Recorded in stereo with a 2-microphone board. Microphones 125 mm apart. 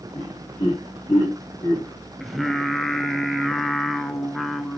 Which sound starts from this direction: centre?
Singing, at 2.2 s.